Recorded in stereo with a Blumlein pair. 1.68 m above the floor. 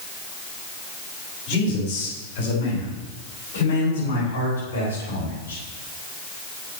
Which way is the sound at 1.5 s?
45° left.